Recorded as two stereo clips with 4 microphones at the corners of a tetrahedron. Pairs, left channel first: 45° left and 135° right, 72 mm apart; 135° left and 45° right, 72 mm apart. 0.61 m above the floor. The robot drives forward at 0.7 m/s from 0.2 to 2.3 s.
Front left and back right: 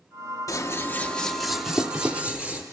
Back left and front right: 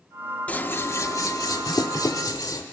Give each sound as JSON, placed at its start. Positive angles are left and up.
{"t": 0.5, "sound": "scissors", "azimuth_deg": 70, "distance_m": 0.7}